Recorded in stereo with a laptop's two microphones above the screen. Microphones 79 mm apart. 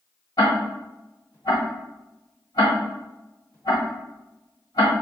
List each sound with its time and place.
0.4 s ticking: 60° left (ahead or behind), 1.5 m